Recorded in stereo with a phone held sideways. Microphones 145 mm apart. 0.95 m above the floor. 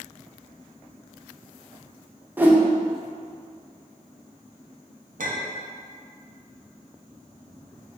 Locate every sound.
2.4 s a whoosh: 10° right (ahead or behind), 0.5 m
5.2 s a clink: 70° right (ahead or behind), 0.6 m